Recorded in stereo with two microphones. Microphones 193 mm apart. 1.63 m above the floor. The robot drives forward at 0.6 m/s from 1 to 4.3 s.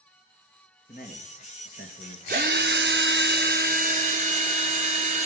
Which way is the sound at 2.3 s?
50° right (ahead or behind).